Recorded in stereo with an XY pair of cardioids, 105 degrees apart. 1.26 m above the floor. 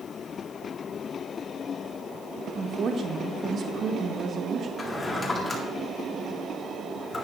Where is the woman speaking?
45° right, 1.0 m.